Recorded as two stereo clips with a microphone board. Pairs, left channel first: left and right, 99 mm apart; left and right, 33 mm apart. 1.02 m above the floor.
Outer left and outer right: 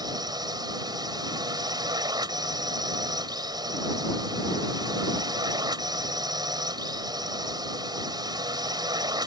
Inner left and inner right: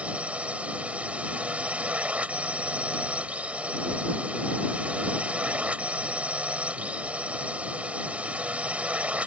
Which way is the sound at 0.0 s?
45° right (ahead or behind).